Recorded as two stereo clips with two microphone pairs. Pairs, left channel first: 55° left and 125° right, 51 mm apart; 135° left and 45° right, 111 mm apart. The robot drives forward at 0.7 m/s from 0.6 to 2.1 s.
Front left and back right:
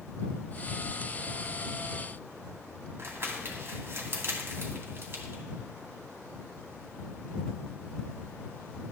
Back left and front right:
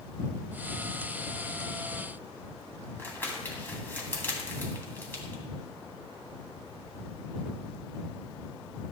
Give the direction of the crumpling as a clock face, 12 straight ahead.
5 o'clock.